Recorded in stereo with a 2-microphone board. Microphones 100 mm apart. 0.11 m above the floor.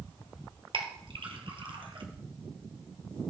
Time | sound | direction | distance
0.7 | a clink | 60° right (ahead or behind) | 2.0 m